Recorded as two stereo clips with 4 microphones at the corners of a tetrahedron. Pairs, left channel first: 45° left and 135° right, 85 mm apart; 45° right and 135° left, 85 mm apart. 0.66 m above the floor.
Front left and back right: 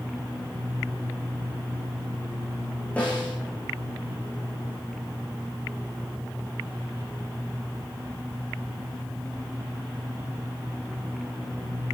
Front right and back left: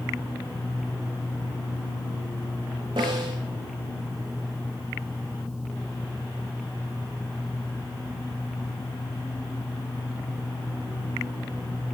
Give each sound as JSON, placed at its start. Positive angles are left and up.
{"t": 3.0, "sound": "a snare drum", "azimuth_deg": 120, "distance_m": 8.0}